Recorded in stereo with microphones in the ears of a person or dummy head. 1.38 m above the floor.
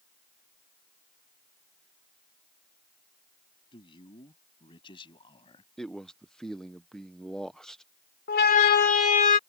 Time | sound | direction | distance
3.7 | a man speaking | 25° left (ahead or behind) | ?
5.8 | a man speaking | 5° left (ahead or behind) | ?
8.3 | a siren | 55° left (ahead or behind) | ?